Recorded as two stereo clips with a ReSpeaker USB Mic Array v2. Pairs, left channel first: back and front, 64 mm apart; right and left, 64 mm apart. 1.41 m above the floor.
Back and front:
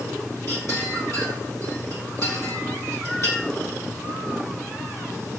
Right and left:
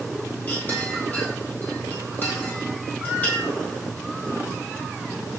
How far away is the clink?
About 1.3 m.